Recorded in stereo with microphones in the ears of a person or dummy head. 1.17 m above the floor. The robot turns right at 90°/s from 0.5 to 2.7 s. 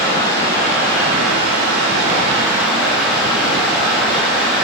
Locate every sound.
0.0 s running water: 170° left, 0.9 m; by 4.6 s 5° left, 0.9 m